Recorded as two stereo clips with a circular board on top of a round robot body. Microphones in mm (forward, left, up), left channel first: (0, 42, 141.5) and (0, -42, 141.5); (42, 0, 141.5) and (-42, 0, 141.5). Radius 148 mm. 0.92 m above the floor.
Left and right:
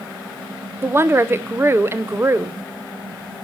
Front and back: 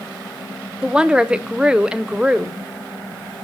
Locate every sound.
0.8 s a woman speaking: 110° right, 0.9 m